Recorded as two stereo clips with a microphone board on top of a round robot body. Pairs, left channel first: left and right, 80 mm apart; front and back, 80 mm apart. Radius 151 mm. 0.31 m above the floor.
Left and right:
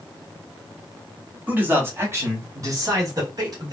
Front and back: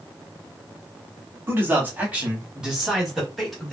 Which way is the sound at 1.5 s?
140° right.